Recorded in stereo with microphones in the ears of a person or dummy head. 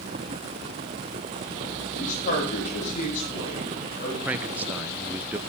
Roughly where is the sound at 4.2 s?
Centre.